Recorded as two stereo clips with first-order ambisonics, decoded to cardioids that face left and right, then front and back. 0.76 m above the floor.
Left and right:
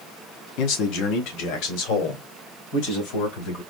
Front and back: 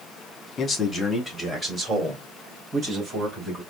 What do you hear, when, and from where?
0.6 s a man speaking: 65° left, 1.1 m; by 3.6 s 115° left, 3.5 m